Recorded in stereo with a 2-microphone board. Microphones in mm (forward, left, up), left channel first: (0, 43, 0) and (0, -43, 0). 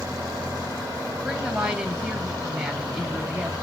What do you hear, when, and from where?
1.2 s a woman speaking: 10° right (ahead or behind), 1.9 m